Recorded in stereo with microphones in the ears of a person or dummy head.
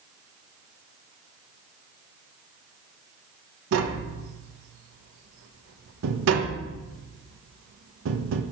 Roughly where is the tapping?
Right.